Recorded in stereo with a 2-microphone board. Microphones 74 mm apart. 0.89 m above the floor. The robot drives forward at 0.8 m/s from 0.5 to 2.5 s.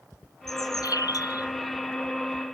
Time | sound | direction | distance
0.5 | a bird | 55° left (ahead or behind) | ?